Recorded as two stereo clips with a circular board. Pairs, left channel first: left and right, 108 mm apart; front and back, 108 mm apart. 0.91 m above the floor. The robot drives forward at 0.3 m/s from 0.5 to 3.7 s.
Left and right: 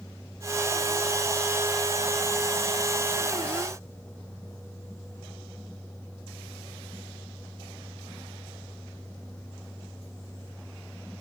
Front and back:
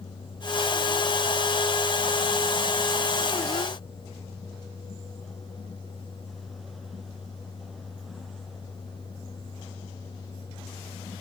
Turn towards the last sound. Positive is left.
No sound to turn to.